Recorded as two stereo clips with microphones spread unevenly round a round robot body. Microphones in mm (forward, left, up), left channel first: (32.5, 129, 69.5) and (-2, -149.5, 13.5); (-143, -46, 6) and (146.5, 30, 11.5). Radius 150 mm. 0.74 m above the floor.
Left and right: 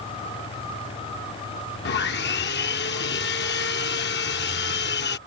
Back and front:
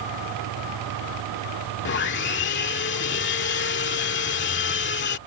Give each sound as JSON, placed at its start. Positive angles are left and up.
{"t": 1.9, "sound": "sawing", "azimuth_deg": 140}